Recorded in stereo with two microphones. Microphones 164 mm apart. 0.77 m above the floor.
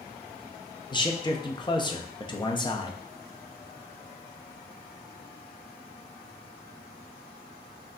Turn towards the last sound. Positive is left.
turn(degrees=30)  # may be behind; listen again after turning